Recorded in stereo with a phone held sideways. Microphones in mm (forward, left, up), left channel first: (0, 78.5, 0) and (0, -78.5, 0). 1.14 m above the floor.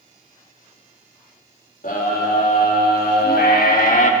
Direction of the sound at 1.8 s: 70° left (ahead or behind).